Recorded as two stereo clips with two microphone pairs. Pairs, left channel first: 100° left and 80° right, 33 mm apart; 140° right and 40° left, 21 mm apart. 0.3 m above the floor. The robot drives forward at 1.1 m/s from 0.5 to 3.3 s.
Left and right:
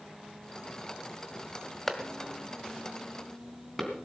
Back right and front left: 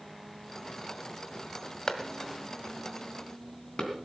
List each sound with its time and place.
1.9 s a clap: straight behind, 1.6 m